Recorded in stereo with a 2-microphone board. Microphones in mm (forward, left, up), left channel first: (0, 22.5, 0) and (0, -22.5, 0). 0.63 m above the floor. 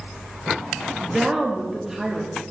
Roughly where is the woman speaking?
Centre.